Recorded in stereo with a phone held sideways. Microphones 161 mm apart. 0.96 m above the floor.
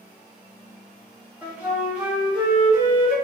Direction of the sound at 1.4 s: 10° right (ahead or behind).